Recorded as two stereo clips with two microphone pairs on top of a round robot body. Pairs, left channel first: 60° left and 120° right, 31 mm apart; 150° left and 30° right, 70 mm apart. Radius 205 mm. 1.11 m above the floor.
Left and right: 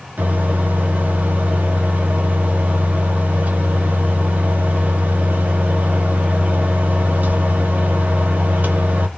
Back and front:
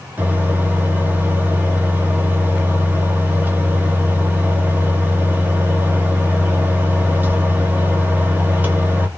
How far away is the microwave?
About 0.8 m.